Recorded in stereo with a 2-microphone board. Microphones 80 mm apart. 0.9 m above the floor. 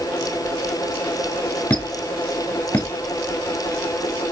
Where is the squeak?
20° left (ahead or behind), 1.1 m.